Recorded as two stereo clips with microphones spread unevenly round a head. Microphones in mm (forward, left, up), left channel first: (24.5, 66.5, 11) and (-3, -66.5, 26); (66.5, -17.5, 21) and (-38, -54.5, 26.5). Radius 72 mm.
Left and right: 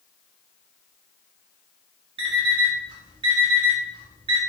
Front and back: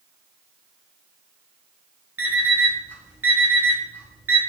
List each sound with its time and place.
2.2 s an alarm clock: 100° right, 1.0 m